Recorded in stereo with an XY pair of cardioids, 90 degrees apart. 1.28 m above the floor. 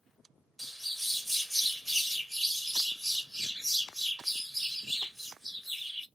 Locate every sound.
0.6 s a bird: 5° right, 0.7 m